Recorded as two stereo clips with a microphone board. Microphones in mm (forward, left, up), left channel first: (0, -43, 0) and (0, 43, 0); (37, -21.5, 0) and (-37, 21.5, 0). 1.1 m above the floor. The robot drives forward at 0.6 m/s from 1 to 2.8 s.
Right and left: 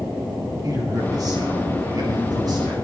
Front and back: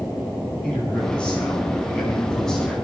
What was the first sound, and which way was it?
A man speaking, 50° left.